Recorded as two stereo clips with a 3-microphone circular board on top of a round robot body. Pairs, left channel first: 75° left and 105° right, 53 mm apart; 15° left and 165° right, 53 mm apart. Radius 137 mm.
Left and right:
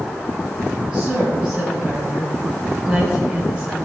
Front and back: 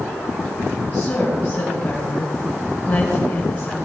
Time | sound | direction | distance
0.9 | a woman speaking | 40° right | 4.5 m